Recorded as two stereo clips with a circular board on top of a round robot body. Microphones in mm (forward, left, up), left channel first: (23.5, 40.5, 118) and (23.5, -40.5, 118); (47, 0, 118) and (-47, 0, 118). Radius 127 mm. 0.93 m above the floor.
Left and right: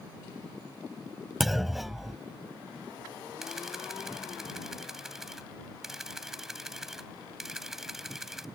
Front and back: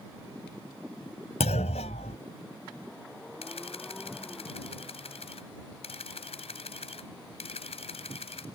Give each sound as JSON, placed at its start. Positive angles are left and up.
{"t": 1.4, "sound": "a clunk", "azimuth_deg": -5}
{"t": 3.4, "sound": "a camera shutter", "azimuth_deg": -5}